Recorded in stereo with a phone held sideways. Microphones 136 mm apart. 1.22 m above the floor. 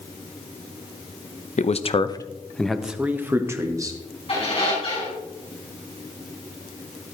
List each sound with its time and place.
1.6 s a man speaking: 60° left (ahead or behind), 0.7 m; by 4.0 s 25° right (ahead or behind), 1.4 m
4.3 s a squeak: 45° left (ahead or behind), 4.5 m